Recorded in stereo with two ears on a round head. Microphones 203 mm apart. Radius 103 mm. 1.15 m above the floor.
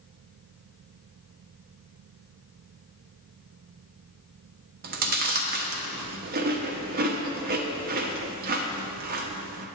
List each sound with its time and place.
4.8 s chewing: 40° right (ahead or behind), 0.7 m